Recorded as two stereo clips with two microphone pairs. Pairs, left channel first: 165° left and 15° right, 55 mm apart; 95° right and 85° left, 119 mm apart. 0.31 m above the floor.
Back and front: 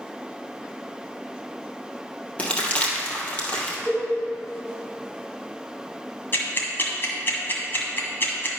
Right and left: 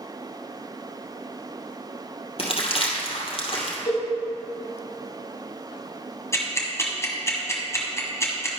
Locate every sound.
2.4 s crumpling: 130° right, 2 m
3.9 s a cowbell: 165° left, 3 m
6.3 s ticking: 155° right, 1.9 m